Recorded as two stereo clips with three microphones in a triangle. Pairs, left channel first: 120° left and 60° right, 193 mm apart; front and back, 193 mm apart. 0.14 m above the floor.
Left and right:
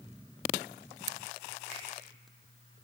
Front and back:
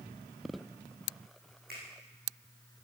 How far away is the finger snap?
About 6.5 m.